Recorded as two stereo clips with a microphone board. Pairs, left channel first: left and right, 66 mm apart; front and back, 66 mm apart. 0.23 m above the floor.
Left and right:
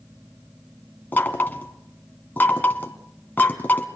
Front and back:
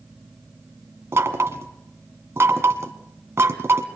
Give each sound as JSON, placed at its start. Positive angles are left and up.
{"t": 1.1, "sound": "knocking", "azimuth_deg": 145, "distance_m": 1.8}